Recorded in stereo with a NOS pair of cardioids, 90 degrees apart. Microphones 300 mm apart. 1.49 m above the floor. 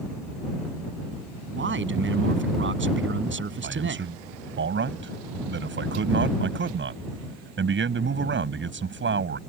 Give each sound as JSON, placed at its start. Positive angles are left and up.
{"t": 1.5, "sound": "a man speaking", "azimuth_deg": -40}
{"t": 3.6, "sound": "a man speaking", "azimuth_deg": -40}